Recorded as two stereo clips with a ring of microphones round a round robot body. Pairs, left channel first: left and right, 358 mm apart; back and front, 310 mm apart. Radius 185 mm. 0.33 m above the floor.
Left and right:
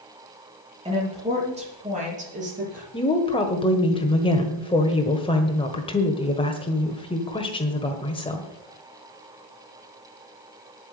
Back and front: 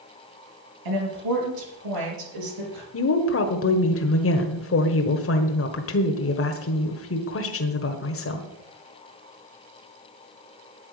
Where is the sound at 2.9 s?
160° left, 1.4 m.